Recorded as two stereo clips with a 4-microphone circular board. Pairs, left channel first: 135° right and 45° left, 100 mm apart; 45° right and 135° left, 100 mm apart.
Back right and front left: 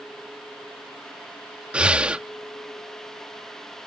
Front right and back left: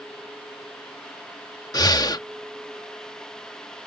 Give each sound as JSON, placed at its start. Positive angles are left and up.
{"t": 1.7, "sound": "breathing", "azimuth_deg": -25}